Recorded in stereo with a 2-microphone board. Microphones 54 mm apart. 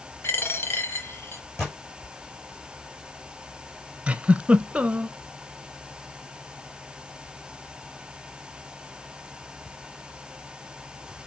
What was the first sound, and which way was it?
A dropped coin, 50° left (ahead or behind).